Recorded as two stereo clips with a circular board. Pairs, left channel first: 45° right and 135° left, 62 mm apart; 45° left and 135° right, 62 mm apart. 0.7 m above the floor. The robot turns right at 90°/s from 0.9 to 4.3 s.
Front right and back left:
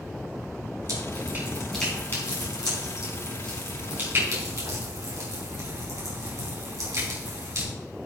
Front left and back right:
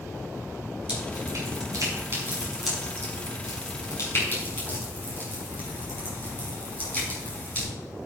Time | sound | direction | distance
0.9 | dripping | 155° left | 5 m